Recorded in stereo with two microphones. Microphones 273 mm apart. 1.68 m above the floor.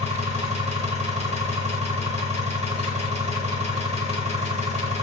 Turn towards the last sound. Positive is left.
turn(degrees=-25)  # may be behind; listen again after turning